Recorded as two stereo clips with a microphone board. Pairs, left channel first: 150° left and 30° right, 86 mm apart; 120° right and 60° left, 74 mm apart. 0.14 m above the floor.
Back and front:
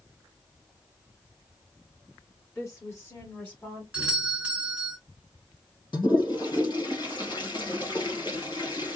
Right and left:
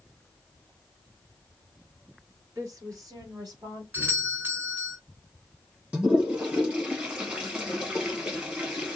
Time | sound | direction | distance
2.5 | a woman speaking | 100° left | 3 m
3.9 | a doorbell | 30° left | 2.5 m
5.9 | a toilet flushing | 130° left | 2.5 m